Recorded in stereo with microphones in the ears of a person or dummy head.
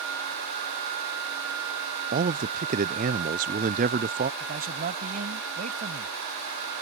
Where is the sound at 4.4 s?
40° right (ahead or behind).